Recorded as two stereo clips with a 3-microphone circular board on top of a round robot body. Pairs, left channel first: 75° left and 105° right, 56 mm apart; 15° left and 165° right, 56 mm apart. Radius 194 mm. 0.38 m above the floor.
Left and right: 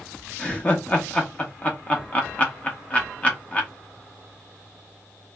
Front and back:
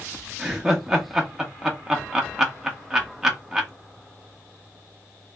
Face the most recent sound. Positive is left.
turn(degrees=120)